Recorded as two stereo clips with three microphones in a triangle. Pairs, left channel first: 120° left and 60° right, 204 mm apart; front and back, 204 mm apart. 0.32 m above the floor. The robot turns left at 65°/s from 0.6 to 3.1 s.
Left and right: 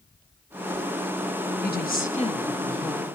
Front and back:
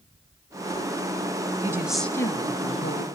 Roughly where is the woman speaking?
Left.